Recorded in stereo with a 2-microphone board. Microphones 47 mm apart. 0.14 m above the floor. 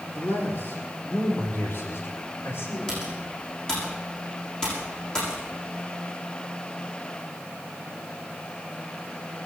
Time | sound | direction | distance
0.1 | a man speaking | 60° left (ahead or behind) | 3.5 m
2.9 | typing on a keyboard | 15° left (ahead or behind) | 8 m